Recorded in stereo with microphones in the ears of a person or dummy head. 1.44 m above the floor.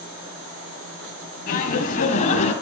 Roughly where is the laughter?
Left.